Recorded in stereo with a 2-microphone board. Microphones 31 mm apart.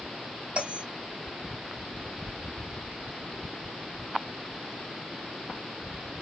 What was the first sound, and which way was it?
A bell, 35° right (ahead or behind).